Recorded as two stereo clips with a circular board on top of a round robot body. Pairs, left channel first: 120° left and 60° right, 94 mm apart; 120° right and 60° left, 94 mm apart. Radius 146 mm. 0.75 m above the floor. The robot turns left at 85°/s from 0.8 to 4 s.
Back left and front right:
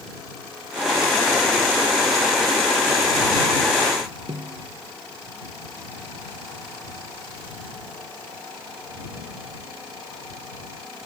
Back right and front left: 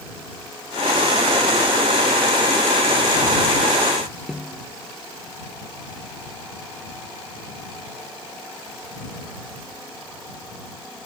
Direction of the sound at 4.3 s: 25° right.